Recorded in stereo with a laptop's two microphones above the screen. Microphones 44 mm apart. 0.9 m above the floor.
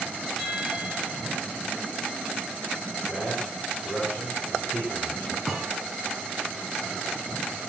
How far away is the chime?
About 4 m.